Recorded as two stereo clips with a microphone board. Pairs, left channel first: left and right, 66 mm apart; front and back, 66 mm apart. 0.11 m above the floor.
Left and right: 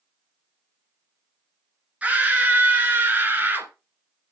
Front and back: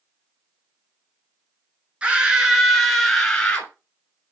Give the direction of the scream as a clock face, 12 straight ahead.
4 o'clock.